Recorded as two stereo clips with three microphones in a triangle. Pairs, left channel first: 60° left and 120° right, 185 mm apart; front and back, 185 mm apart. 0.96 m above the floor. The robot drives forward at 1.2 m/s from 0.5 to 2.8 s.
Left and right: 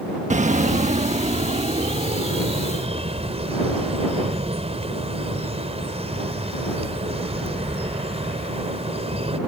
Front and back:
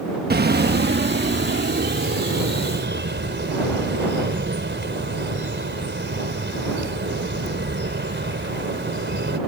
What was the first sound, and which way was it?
A bird, 165° right.